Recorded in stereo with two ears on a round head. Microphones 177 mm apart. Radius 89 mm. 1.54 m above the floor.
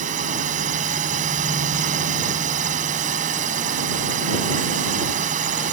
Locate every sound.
0.0 s a drone: 40° right (ahead or behind)